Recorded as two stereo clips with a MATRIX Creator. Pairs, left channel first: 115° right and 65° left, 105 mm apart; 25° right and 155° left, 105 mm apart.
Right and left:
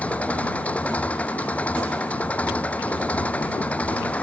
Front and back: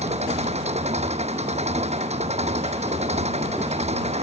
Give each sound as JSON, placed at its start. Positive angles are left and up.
{"t": 0.0, "sound": "an engine running", "azimuth_deg": 170}